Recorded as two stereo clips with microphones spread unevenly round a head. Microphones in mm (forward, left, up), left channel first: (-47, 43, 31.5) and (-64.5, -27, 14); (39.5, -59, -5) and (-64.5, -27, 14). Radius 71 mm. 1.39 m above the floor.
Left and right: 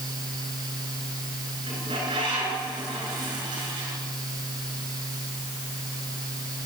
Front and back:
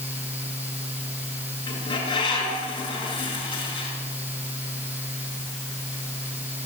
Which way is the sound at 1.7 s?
65° right.